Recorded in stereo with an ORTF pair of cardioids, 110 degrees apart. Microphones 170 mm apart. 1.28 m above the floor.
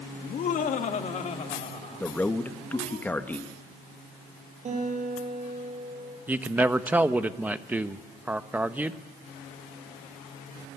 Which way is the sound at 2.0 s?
10° left.